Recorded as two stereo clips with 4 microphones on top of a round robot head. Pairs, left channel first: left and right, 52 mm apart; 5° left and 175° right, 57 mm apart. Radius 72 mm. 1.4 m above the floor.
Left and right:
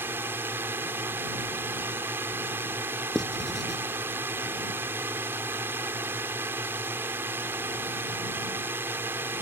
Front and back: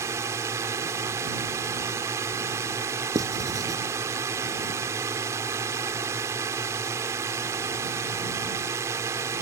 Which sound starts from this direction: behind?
Writing, at 3.1 s.